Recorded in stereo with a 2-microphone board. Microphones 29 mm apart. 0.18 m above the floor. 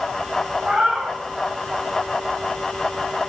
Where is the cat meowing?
15° right (ahead or behind), 4.5 m.